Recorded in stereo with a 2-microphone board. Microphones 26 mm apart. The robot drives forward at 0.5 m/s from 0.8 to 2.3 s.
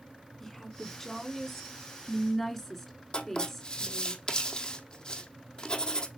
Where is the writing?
35° left (ahead or behind), 1.7 m.